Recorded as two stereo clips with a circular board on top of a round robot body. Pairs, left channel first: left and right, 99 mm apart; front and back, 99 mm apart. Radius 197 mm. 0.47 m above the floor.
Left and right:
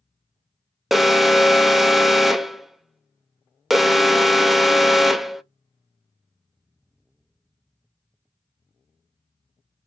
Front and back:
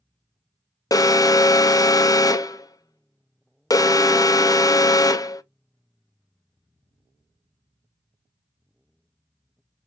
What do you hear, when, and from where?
0.9 s an alarm: straight ahead, 0.6 m